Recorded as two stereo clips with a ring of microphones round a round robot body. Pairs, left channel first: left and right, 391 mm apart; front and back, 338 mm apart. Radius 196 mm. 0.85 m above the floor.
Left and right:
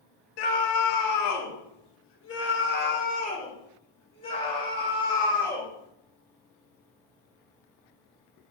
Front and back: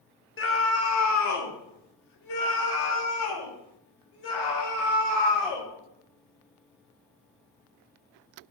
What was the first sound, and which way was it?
A scream, 55° left.